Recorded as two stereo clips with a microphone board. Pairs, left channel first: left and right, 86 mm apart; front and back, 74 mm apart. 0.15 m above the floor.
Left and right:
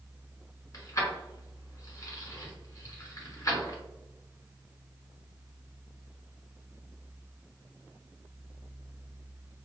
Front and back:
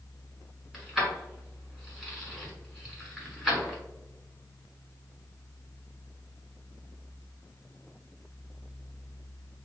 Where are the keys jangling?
100° left, 1.2 m.